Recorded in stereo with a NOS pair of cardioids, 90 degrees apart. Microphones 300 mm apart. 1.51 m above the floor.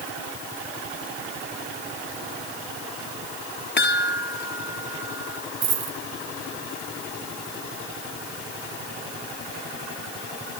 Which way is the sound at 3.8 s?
35° left.